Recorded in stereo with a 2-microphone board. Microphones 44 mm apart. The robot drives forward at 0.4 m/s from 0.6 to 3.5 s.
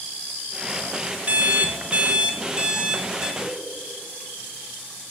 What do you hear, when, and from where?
1.3 s an alarm clock: 35° right (ahead or behind), 0.5 m; by 3.3 s 20° right (ahead or behind), 1.0 m
3.4 s a whoosh: 5° left (ahead or behind), 2.5 m